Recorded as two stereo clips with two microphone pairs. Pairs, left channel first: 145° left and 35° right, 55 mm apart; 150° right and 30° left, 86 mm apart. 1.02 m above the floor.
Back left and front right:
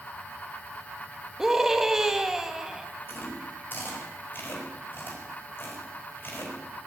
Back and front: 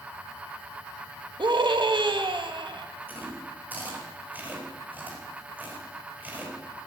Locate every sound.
1.4 s a scream: 45° left, 1.5 m
3.1 s chewing: 100° left, 4.5 m